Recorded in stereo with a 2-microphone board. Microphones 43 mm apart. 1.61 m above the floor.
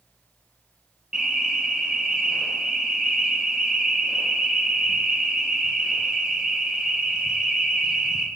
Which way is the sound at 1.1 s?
20° right (ahead or behind).